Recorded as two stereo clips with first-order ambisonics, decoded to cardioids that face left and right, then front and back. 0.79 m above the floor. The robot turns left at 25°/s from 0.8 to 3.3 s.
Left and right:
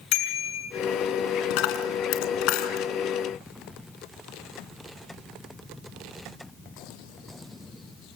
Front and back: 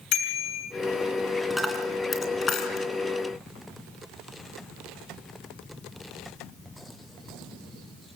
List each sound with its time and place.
0.1 s a bicycle bell: 50° left, 6 m
1.5 s a dropped coin: 90° left, 2.5 m; by 2.9 s 55° left, 2.5 m